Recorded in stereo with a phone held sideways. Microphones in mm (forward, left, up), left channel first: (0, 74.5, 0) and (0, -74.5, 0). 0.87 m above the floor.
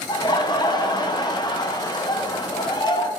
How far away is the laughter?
About 0.6 m.